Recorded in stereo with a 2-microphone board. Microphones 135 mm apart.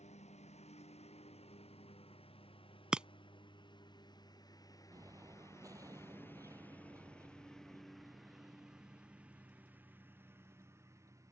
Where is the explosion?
25° right (ahead or behind).